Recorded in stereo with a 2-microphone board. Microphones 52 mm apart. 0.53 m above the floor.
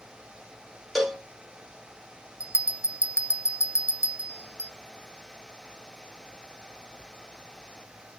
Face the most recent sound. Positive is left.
turn(degrees=65)  # may be behind; listen again after turning